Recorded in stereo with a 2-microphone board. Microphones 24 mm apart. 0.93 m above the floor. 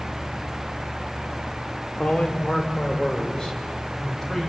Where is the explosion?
No explosion in this recording.